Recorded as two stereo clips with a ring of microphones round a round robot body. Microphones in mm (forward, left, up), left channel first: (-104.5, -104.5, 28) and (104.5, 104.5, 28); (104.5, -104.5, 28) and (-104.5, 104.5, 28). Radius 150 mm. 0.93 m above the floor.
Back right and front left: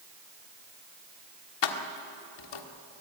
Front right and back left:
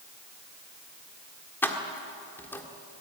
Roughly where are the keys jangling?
Behind right.